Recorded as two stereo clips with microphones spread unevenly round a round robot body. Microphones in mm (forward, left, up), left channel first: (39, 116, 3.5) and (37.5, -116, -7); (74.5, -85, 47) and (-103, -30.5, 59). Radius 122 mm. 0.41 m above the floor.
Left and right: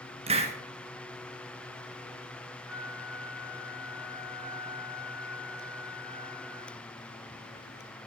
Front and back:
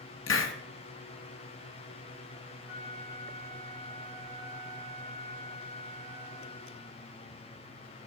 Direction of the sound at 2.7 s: 25° right.